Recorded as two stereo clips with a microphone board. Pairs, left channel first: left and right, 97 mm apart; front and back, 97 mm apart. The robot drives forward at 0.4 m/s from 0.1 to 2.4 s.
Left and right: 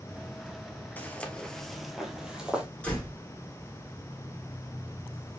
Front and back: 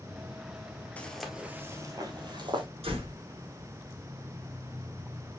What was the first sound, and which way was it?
Footsteps, 50° left.